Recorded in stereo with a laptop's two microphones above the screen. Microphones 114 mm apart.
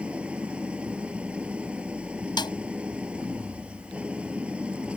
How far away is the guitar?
No guitar in this recording.